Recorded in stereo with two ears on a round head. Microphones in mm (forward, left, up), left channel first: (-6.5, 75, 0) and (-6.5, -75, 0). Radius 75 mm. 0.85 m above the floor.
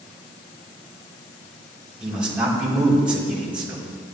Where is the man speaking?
5° right (ahead or behind), 4 m.